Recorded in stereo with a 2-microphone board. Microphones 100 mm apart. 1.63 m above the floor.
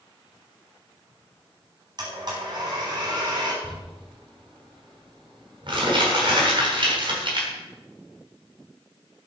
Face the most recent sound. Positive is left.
turn(degrees=-55)  # may be behind; listen again after turning